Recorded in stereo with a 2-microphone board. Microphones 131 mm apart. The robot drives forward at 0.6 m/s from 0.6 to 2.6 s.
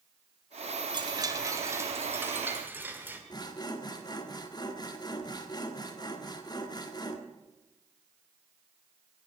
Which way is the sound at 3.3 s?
30° left (ahead or behind).